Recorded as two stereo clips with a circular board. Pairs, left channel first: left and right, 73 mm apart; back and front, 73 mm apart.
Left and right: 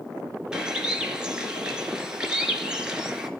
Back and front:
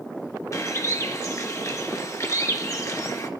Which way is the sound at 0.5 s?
165° right.